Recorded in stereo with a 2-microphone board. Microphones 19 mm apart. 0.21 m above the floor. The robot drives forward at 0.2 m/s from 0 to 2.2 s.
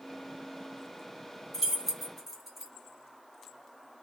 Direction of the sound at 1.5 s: 15° right (ahead or behind).